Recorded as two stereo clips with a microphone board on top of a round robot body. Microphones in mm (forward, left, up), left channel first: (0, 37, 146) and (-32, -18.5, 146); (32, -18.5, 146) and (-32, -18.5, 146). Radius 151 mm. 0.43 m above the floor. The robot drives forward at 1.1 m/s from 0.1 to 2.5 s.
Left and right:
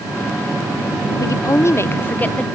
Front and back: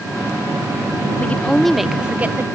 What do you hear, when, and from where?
1.2 s a woman speaking: 60° left; by 2.5 s 130° left